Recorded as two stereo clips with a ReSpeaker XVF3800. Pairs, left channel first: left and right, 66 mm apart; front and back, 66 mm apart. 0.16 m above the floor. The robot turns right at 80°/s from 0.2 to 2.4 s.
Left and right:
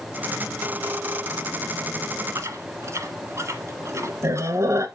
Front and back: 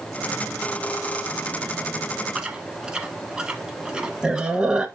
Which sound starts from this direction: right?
Chewing, at 2.4 s.